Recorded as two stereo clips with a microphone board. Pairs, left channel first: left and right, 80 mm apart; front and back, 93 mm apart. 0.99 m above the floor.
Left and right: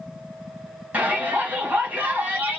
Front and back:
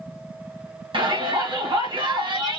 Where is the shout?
160° right, 2 m.